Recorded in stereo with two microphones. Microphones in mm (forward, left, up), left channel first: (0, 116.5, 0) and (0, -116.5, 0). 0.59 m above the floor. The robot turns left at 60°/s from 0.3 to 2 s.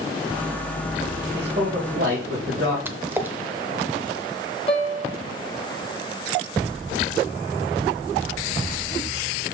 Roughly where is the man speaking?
Ahead right.